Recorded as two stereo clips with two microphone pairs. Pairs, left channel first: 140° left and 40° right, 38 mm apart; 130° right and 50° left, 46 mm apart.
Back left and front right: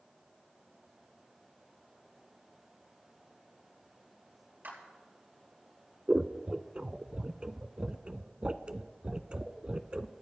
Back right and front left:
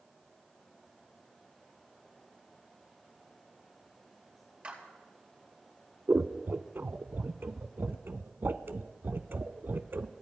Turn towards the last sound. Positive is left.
turn(degrees=20)